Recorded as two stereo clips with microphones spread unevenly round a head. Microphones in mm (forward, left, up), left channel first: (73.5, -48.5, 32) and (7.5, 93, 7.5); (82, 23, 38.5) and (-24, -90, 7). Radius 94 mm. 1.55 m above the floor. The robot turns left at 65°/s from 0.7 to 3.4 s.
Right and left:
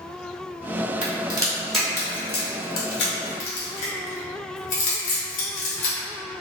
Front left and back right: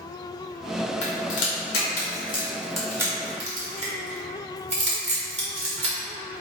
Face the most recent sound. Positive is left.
turn(degrees=-85)